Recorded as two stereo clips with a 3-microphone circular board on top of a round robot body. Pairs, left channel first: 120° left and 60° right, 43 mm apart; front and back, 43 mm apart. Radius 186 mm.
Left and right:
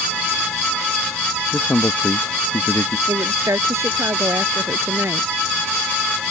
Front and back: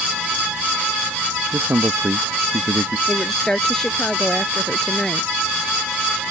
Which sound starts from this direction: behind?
A man speaking, at 1.5 s.